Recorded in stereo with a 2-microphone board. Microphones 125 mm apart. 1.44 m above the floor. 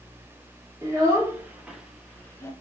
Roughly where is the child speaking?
Right.